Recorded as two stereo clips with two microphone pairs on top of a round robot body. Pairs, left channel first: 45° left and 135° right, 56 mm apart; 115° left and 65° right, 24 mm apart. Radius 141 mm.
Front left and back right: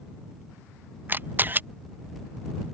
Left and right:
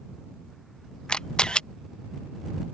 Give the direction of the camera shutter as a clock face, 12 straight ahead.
6 o'clock.